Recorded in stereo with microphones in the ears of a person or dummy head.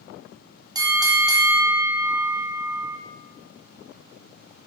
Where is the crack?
I don't hear a crack.